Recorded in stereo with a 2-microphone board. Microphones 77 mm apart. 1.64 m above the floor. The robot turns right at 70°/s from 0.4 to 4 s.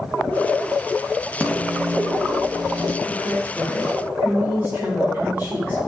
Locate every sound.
1.4 s a microwave: 165° left, 1.8 m; by 3.0 s 90° right, 1.8 m
3.0 s a woman speaking: 95° right, 5.5 m; by 5.8 s 30° right, 5.5 m